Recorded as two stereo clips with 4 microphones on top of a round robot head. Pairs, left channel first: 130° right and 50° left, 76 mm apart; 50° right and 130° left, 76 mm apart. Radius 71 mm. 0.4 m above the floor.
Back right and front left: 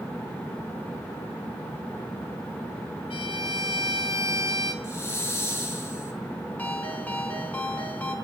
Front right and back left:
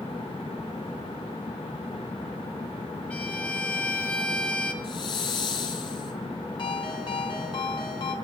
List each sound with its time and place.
3.1 s a violin: 125° right, 3 m
4.8 s a hiss: 75° right, 5.5 m
6.6 s a ringtone: 60° right, 4.5 m